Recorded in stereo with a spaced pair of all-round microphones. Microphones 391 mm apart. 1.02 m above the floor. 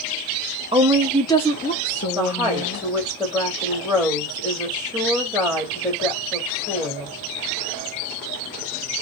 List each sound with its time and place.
0.7 s a woman speaking: 15° right (ahead or behind), 0.5 m; by 2.9 s 40° left (ahead or behind), 1.1 m
2.1 s a woman speaking: centre (ahead or behind), 1.3 m